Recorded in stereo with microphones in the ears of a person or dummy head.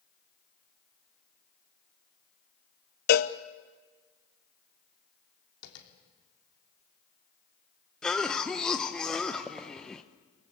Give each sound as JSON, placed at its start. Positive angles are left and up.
{"t": 3.1, "sound": "a cowbell", "side_deg": 55, "distance_m": 0.8}
{"t": 5.6, "sound": "tapping", "side_deg": 80, "distance_m": 3.5}
{"t": 8.0, "sound": "a cough", "side_deg": 5, "distance_m": 0.9}